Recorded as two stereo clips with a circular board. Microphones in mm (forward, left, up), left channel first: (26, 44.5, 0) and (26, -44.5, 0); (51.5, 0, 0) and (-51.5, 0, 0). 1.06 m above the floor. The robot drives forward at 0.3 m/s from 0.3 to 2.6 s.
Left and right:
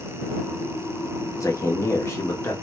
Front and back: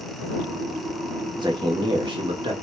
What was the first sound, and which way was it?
A man speaking, 140° left.